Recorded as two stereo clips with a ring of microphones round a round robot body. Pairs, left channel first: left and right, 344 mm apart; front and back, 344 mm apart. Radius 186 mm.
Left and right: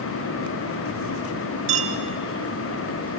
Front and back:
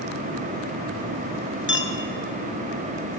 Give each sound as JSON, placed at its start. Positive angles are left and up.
{"t": 1.7, "sound": "a clink", "azimuth_deg": -60, "distance_m": 2.5}